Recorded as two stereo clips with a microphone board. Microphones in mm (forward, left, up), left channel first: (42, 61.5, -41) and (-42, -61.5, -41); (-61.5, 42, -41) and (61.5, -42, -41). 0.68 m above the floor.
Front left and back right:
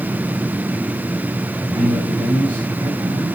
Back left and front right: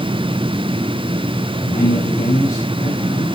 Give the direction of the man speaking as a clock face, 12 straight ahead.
6 o'clock.